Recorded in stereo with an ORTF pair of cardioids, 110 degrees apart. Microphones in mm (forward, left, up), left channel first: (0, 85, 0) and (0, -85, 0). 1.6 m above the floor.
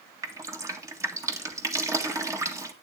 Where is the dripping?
20° right, 1.7 m.